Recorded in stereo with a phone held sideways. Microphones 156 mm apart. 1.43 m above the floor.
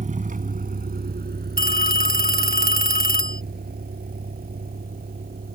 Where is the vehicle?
50° right (ahead or behind); by 5.5 s 70° right (ahead or behind).